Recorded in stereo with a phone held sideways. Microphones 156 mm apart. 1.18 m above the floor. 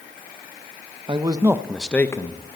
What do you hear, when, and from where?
1.1 s a man speaking: 35° right (ahead or behind), 0.8 m; by 2.6 s 35° left (ahead or behind), 0.9 m